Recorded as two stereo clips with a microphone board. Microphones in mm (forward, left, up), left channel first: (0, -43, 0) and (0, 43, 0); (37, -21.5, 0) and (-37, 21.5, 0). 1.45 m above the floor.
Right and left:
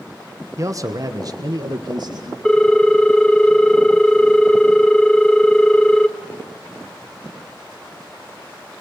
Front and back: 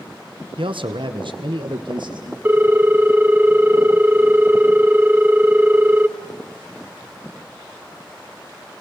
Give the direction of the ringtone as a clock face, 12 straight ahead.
5 o'clock.